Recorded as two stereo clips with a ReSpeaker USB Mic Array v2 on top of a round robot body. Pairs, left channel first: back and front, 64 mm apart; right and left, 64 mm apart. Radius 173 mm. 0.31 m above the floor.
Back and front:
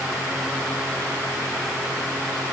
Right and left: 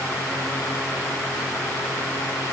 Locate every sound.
Only background noise.